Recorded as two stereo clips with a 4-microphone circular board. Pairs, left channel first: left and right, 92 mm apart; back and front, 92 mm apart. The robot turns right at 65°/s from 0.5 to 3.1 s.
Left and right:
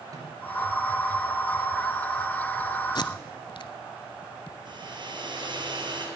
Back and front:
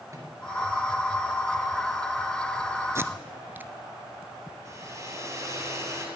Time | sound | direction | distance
0.1 | a microwave | 50° right | 2.5 m
3.0 | tape being pulled | 55° left | 0.5 m
4.7 | a hair dryer | 55° right | 2 m